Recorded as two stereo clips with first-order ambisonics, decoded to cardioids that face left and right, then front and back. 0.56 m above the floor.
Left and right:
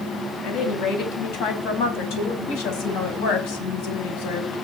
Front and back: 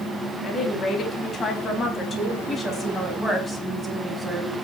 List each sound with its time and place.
0.4 s a woman speaking: 60° left, 4.5 m; by 4.6 s 90° left, 5 m